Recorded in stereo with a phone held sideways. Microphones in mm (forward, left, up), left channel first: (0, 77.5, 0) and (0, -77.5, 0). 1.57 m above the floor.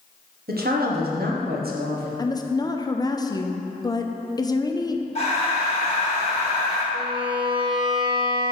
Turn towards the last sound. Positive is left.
turn(degrees=-30)  # may be behind; listen again after turning